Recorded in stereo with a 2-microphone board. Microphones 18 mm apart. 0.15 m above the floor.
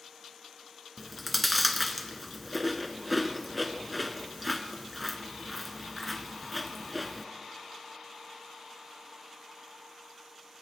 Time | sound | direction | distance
1.0 | chewing | centre (ahead or behind) | 0.7 m